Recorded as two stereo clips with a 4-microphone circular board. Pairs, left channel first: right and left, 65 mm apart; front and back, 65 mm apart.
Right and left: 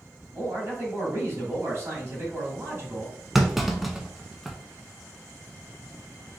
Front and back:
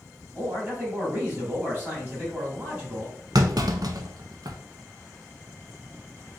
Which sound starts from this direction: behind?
A clunk, at 3.4 s.